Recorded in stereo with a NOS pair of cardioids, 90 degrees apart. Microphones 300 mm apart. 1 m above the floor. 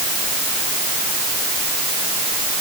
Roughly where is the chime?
No chime in this recording.